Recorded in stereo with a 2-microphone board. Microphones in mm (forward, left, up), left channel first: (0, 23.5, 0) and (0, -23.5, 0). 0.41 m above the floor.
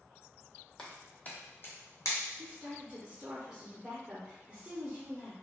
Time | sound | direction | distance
0.8 | footsteps | 10° left (ahead or behind) | 0.9 m
2.4 | a woman speaking | 15° right (ahead or behind) | 0.8 m